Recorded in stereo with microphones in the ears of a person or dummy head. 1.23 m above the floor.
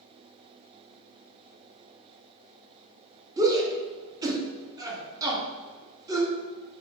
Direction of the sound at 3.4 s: 10° right (ahead or behind).